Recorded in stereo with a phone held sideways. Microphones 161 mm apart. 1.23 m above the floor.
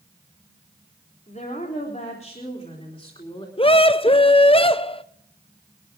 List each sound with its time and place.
1.3 s a woman speaking: 55° left (ahead or behind), 4 m; by 3.5 s 35° left (ahead or behind), 3.5 m
3.6 s a scream: 35° left (ahead or behind), 0.6 m